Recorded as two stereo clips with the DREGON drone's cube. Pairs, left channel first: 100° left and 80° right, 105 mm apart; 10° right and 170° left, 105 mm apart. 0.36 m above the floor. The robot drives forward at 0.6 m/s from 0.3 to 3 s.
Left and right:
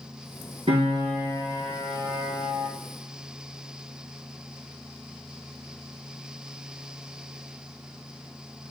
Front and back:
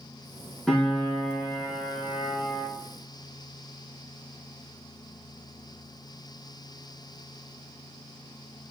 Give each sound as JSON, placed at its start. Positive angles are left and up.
{"t": 0.7, "sound": "a piano", "azimuth_deg": -95, "distance_m": 2.5}